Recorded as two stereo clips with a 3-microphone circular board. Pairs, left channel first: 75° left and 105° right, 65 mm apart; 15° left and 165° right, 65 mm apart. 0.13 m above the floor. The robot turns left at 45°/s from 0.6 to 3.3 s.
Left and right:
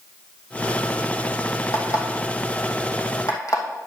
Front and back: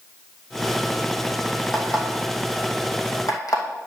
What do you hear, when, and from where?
1.7 s an alarm clock: 110° left, 2.5 m; by 3.9 s 40° left, 2.5 m